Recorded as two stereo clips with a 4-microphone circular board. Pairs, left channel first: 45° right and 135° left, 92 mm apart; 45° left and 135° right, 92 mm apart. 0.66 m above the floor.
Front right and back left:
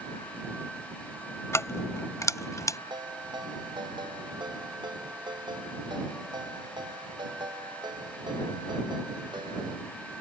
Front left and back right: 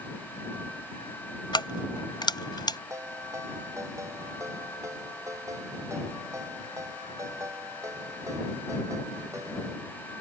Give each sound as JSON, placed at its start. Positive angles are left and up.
{"t": 1.5, "sound": "keys jangling", "azimuth_deg": 15}
{"t": 2.9, "sound": "a ringtone", "azimuth_deg": 170}